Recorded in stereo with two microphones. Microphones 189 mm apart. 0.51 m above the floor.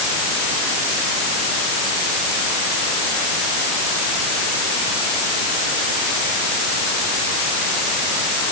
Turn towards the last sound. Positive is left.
No sound to turn to.